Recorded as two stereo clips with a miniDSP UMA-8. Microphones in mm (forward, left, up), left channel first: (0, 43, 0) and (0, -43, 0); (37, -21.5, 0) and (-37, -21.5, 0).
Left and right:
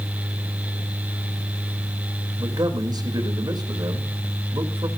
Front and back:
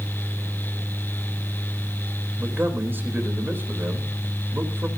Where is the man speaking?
120° right, 3.5 m.